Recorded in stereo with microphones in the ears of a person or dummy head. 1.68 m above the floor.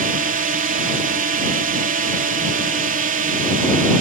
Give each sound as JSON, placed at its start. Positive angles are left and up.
{"t": 0.0, "sound": "a drone", "side_deg": -40}